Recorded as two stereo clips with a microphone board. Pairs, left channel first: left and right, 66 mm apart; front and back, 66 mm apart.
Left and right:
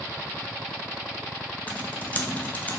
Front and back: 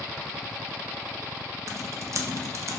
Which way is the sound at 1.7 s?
155° left.